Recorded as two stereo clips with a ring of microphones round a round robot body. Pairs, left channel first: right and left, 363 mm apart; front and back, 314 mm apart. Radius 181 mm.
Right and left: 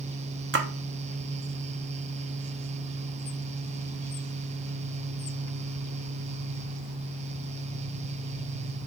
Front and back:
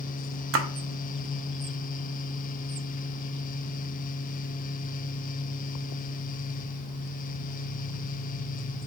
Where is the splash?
140° left, 0.7 m.